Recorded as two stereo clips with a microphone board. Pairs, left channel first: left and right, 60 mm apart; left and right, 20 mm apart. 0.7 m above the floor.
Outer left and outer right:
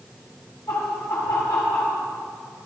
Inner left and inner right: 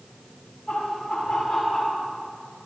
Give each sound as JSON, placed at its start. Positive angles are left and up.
{"t": 0.7, "sound": "laughter", "side_deg": 65, "distance_m": 6.5}